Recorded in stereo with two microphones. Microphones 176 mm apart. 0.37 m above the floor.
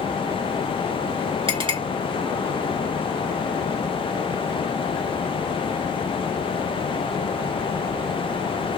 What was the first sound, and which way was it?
A clink, 30° right (ahead or behind).